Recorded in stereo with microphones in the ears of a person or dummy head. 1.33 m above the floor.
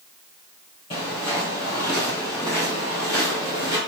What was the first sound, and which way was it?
Footsteps, 20° left (ahead or behind).